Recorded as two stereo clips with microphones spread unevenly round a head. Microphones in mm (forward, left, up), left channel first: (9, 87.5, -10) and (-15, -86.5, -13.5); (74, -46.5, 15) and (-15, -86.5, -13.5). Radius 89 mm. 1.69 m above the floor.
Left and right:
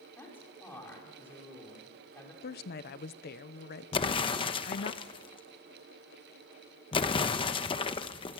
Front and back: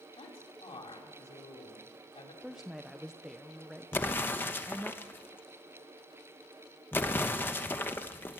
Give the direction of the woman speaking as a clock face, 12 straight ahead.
8 o'clock.